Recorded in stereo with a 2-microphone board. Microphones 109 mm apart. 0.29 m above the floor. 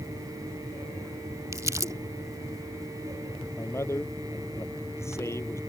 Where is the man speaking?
25° left (ahead or behind).